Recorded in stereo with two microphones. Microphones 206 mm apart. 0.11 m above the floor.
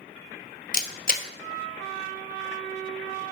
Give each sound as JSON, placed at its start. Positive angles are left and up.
{"t": 0.7, "sound": "a camera shutter", "side_deg": 45, "distance_m": 0.6}